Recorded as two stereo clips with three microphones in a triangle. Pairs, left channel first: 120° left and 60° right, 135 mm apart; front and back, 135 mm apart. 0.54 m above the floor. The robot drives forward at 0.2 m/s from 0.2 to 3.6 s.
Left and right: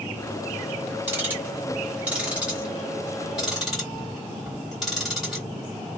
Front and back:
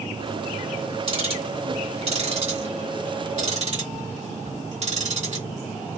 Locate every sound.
1.1 s ticking: 135° right, 1.2 m; by 5.5 s 145° right, 1.6 m